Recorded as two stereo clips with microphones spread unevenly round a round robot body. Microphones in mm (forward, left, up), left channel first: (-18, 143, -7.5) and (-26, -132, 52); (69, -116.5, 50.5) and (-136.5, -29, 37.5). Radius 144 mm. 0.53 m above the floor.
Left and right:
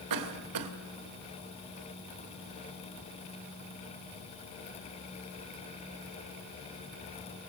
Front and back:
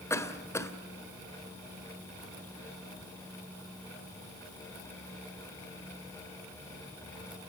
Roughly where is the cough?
Right.